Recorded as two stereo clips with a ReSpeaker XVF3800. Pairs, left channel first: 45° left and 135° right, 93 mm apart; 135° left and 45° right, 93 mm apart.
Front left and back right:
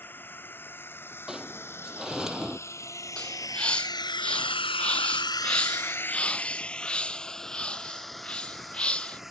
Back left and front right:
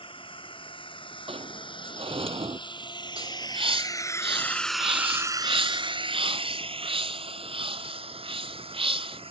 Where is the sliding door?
50° right.